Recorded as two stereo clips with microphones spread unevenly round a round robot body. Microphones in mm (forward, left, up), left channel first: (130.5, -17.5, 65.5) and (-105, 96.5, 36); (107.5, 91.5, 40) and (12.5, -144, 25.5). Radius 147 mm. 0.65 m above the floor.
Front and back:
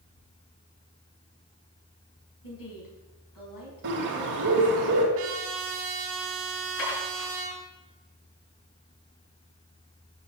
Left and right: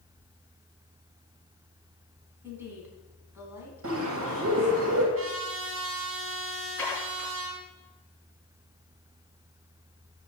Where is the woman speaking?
30° right, 5.5 m.